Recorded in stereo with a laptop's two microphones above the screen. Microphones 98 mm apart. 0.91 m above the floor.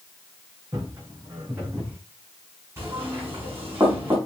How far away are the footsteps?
About 3.5 m.